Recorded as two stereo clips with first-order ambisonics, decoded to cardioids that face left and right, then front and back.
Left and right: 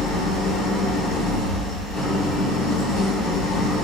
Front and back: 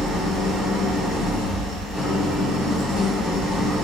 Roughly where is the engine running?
Left.